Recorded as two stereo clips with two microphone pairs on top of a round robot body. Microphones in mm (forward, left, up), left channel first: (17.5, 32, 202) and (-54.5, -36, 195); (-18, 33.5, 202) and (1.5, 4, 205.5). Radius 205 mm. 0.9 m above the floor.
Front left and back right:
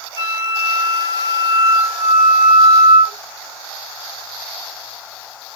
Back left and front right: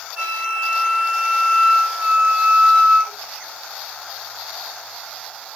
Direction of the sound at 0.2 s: 5° right.